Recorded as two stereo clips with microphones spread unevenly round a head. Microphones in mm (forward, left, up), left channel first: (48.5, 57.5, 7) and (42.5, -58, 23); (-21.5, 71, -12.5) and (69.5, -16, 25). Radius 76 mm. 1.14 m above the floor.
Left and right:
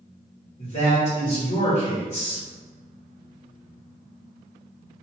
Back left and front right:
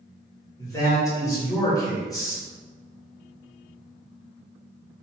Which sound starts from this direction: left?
A man speaking, at 0.6 s.